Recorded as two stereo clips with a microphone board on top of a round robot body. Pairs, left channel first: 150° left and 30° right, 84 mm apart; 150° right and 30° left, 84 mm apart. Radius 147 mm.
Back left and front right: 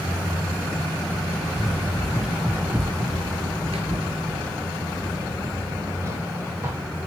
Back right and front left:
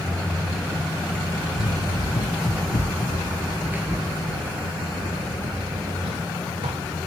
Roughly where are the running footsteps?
Behind right.